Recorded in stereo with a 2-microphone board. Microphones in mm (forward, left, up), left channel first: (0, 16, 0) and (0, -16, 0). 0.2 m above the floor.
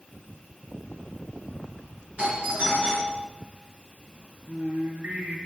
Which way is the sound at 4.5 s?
65° right (ahead or behind).